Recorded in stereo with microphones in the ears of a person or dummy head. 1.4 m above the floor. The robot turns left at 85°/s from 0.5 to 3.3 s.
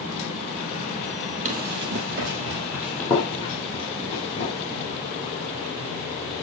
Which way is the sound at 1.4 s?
40° right (ahead or behind).